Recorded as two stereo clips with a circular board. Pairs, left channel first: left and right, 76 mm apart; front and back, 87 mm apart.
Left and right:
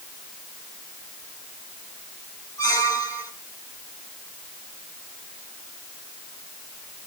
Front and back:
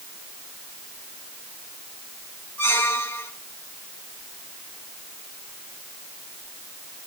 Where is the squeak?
60° left, 1.8 m.